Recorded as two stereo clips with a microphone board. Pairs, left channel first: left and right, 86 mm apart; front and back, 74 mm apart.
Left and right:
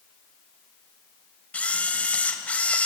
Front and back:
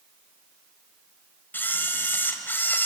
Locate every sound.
1.5 s a camera shutter: 30° left, 1.6 m